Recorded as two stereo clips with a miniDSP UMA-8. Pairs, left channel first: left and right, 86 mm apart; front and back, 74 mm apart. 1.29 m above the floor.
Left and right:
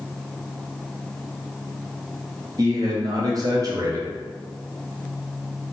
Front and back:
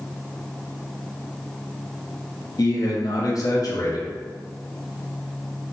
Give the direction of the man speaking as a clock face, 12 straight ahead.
1 o'clock.